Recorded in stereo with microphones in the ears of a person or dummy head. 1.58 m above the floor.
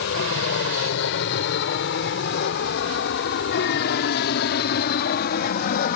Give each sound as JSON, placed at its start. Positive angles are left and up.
{"t": 0.0, "sound": "an aircraft", "side_deg": 60}